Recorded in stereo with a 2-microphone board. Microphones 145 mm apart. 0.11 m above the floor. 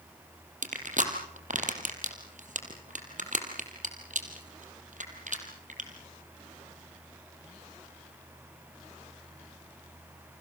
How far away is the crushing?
About 3.5 m.